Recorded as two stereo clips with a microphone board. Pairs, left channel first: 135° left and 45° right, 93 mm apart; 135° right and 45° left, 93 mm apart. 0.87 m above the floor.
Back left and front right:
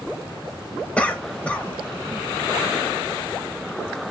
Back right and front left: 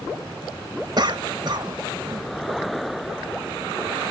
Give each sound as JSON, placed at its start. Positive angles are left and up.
{"t": 1.0, "sound": "a cough", "azimuth_deg": 60, "distance_m": 0.8}